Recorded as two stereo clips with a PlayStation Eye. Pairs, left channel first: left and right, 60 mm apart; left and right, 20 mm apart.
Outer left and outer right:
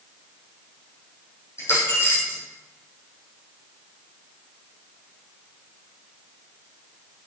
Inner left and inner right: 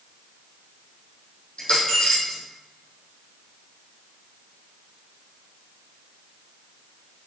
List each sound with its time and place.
1.6 s a dropped coin: 45° left (ahead or behind), 3.5 m